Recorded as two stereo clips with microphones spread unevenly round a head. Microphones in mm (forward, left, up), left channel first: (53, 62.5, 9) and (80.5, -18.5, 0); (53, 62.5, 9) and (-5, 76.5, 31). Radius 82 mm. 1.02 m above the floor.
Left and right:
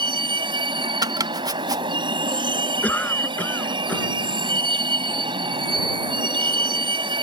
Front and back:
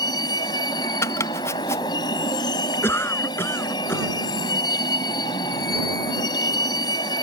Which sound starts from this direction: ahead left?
A cough, at 2.8 s.